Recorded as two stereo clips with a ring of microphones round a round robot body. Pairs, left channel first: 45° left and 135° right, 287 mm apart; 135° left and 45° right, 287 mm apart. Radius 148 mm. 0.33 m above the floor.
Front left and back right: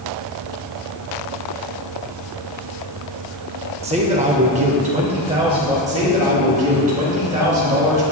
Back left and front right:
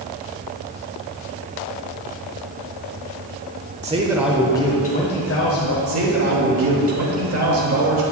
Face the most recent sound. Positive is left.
turn(degrees=-75)